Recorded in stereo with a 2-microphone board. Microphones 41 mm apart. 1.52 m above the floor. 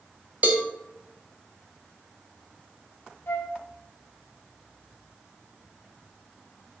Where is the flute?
70° left (ahead or behind), 0.7 m.